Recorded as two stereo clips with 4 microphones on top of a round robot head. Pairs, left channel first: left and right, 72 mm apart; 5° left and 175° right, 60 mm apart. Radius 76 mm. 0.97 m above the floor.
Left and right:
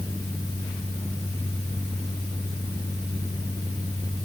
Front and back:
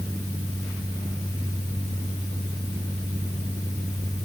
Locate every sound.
Only background noise.